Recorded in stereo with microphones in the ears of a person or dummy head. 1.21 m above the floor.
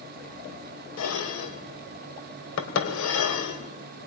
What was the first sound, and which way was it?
Dishes clattering, 80° left.